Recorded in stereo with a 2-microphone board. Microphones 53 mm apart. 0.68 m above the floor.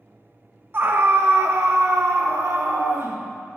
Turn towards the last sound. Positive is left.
turn(degrees=-65)  # may be behind; listen again after turning